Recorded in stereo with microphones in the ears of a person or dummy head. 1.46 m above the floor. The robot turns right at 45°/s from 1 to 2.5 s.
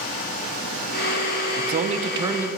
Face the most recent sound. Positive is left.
turn(degrees=-15)